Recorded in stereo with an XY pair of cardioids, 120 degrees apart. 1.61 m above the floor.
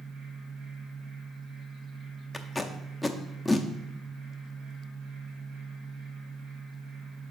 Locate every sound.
0.0 s a fan: 70° right, 3 m
2.3 s tape being pulled: 5° left, 0.7 m